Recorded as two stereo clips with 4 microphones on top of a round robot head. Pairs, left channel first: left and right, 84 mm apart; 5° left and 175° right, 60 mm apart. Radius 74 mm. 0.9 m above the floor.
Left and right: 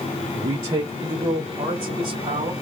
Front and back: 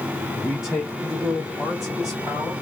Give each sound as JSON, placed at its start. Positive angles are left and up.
{"t": 0.3, "sound": "a man speaking", "azimuth_deg": -95, "distance_m": 1.1}